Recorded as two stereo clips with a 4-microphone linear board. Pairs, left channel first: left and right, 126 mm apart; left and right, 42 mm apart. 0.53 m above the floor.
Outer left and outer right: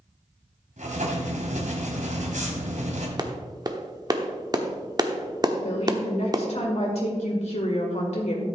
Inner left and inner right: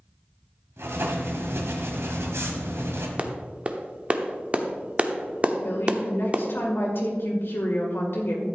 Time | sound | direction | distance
0.8 | writing | 75° right (ahead or behind) | 1.7 m
3.2 | a clap | 30° right (ahead or behind) | 0.8 m
5.6 | a woman speaking | 60° left (ahead or behind) | 2.0 m